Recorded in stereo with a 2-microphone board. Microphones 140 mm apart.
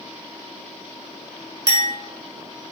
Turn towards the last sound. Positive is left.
turn(degrees=-30)  # may be behind; listen again after turning